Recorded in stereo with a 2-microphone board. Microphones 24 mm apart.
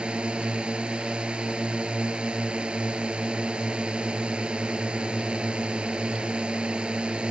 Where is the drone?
40° right (ahead or behind).